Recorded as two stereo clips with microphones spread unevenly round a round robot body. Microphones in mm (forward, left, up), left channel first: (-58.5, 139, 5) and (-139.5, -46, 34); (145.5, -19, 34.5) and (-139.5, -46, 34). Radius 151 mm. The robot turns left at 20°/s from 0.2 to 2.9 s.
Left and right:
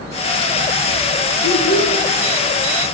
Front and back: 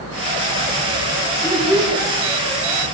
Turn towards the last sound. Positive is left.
turn(degrees=75)